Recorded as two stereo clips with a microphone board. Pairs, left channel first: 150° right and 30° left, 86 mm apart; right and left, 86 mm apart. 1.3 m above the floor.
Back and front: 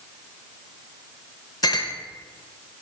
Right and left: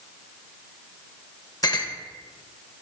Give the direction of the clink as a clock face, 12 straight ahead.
4 o'clock.